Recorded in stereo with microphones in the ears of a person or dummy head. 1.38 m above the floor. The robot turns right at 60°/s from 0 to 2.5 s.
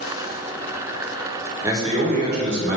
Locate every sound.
1.6 s a man speaking: 160° right, 1.0 m; by 2.8 s 110° right, 1.0 m